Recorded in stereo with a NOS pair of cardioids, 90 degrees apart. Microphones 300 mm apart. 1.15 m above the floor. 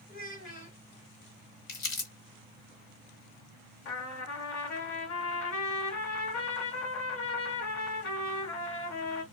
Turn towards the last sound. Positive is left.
turn(degrees=65)